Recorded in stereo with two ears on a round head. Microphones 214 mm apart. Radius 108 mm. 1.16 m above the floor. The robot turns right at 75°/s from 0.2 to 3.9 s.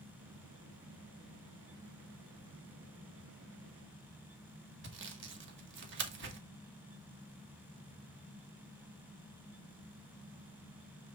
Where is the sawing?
50° right (ahead or behind), 1.4 m.